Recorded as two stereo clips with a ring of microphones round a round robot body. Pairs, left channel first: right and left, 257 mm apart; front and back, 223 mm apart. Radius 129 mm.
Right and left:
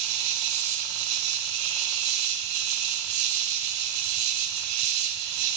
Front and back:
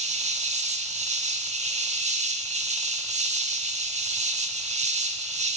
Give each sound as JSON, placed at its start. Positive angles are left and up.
{"t": 0.0, "sound": "an insect", "azimuth_deg": 120, "distance_m": 0.9}